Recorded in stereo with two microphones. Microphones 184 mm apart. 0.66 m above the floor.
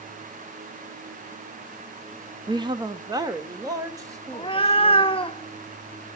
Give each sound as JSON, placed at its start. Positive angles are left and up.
{"t": 2.5, "sound": "a woman speaking", "side_deg": -20, "distance_m": 0.5}
{"t": 4.3, "sound": "a cat meowing", "side_deg": 30, "distance_m": 0.6}